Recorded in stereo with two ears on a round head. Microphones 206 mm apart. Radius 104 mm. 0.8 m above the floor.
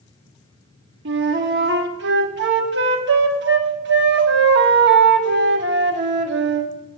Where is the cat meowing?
No cat meowing in this recording.